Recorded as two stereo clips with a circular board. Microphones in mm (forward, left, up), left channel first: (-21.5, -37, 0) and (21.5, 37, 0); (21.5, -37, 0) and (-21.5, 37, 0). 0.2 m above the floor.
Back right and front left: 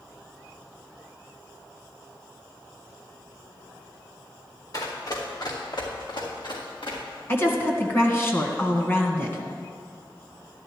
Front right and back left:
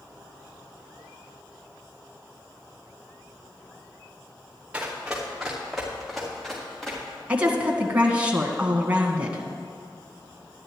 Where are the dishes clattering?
I don't hear dishes clattering.